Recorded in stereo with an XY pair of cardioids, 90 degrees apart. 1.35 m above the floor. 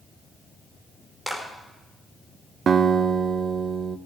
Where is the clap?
10° right, 5 m.